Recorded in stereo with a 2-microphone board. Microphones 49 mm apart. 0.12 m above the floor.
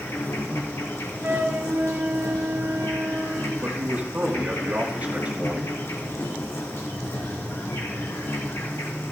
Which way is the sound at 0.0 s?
70° left (ahead or behind).